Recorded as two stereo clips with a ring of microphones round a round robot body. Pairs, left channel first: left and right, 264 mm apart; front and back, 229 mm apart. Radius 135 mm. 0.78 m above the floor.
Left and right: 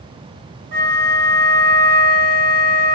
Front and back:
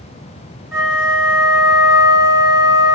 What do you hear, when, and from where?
0.7 s a flute: 100° right, 2 m